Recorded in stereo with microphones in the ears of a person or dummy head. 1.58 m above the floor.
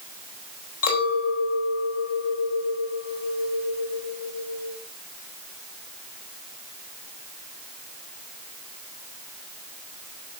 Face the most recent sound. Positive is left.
turn(degrees=75)  # may be behind; listen again after turning